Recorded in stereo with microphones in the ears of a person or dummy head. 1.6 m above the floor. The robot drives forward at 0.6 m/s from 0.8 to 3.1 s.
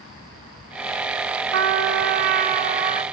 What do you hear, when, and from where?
1.5 s a trumpet: 70° right (ahead or behind), 0.6 m; by 3.0 s 35° right (ahead or behind), 1.0 m